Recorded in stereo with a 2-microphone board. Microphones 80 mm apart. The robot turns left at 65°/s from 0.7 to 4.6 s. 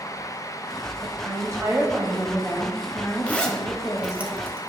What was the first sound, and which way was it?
A woman speaking, 75° right.